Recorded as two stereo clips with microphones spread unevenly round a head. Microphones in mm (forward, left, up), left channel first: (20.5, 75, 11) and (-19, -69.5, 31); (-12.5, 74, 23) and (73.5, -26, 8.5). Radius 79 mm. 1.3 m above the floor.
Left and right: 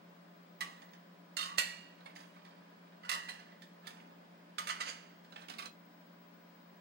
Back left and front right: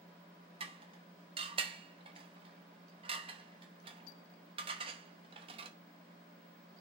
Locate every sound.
0.6 s dishes clattering: 110° right, 0.8 m